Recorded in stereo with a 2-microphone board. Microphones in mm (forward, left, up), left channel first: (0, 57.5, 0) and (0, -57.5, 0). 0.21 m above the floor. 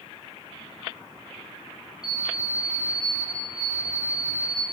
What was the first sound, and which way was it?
An alarm clock, 5° right (ahead or behind).